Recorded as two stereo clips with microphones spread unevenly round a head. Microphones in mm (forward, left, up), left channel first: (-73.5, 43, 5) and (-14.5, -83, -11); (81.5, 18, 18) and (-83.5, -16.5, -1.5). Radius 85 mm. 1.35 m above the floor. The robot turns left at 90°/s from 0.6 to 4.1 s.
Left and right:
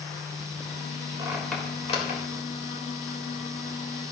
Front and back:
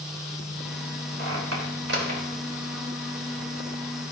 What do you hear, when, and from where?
1.2 s a squeak: 130° right, 4 m; by 2.2 s 135° left, 4 m